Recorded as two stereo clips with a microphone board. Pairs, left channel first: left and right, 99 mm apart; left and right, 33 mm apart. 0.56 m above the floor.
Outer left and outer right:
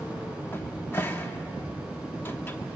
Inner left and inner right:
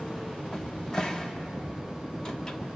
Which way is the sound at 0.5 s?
20° left (ahead or behind).